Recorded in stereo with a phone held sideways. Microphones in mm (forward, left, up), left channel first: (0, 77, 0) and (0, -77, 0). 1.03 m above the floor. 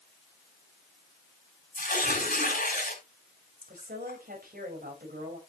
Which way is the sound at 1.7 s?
75° left (ahead or behind).